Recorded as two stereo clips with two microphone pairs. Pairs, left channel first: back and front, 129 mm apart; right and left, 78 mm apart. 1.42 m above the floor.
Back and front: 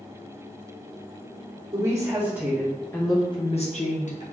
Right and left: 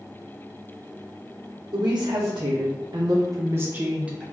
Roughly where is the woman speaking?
Ahead left.